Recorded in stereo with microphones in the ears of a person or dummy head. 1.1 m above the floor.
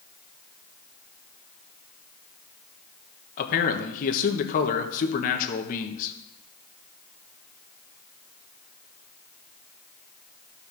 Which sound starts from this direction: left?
A man speaking, at 3.4 s.